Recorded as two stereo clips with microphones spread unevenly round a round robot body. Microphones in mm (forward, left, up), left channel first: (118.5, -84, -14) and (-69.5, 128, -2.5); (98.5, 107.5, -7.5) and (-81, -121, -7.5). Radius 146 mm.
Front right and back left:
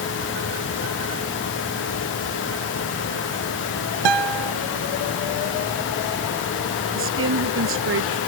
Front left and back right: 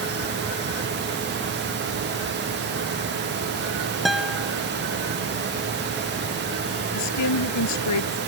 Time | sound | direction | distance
4.0 | a guitar | 140° left | ?
6.9 | a woman speaking | 85° left | ?